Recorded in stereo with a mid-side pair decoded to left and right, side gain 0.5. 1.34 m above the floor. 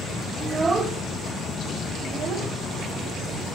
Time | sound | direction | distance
0.4 | a child speaking | 30° right | 2 m